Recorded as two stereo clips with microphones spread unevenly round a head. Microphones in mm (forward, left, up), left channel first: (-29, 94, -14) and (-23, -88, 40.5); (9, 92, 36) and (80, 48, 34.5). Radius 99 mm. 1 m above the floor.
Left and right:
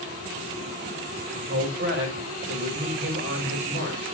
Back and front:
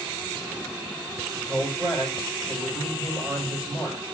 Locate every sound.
1.3 s a man speaking: 110° right, 5 m